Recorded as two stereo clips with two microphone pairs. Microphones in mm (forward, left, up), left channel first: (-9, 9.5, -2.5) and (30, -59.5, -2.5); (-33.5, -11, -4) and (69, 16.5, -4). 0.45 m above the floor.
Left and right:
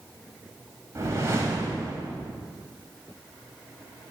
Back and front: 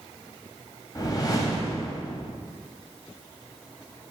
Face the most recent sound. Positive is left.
turn(degrees=-110)